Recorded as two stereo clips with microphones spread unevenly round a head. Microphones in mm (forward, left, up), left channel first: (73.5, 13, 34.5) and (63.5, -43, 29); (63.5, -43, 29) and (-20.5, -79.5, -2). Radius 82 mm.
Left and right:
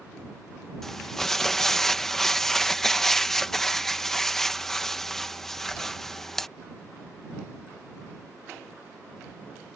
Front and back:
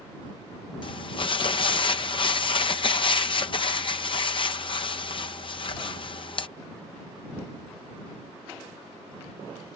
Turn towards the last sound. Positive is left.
turn(degrees=-5)